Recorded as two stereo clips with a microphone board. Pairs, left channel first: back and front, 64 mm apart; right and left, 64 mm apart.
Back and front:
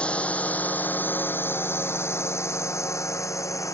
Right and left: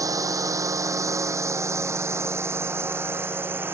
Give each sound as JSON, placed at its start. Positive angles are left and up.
{"t": 0.0, "sound": "a drone", "azimuth_deg": 110}